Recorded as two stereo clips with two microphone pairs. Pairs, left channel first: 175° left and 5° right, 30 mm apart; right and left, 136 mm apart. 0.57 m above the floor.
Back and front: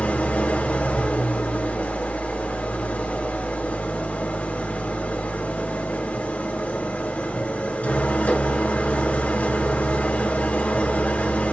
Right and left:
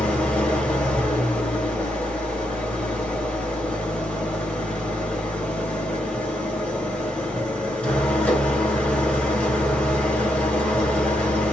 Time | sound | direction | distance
0.0 | an engine running | 170° right | 2.5 m